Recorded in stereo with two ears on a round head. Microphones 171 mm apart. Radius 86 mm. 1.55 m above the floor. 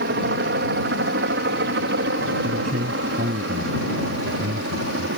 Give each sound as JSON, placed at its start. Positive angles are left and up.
{"t": 0.0, "sound": "a helicopter", "side_deg": -55}
{"t": 2.4, "sound": "a man speaking", "side_deg": -40}